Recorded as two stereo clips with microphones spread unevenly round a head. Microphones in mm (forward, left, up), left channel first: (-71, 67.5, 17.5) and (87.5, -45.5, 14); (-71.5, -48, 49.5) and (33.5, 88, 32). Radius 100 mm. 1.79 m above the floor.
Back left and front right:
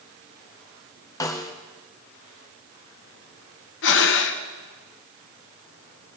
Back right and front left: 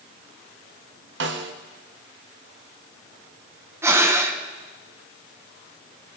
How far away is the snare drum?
About 1.1 m.